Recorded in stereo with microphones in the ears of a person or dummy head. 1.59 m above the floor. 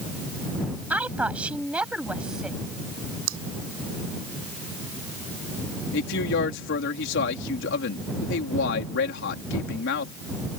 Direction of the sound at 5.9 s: 65° left (ahead or behind).